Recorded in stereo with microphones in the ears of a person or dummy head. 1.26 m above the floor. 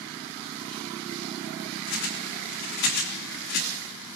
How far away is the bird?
About 3 m.